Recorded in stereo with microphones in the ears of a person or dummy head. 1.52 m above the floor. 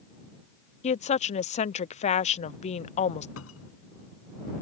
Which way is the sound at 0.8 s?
30° left (ahead or behind).